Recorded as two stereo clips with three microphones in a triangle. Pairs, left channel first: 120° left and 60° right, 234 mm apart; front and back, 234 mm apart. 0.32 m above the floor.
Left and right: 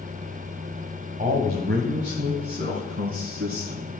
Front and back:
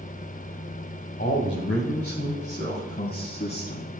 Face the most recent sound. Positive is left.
turn(degrees=-40)